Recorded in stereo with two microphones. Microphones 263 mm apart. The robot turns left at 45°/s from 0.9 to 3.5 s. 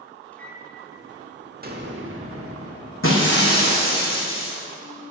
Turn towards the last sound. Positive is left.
turn(degrees=40)  # may be behind; listen again after turning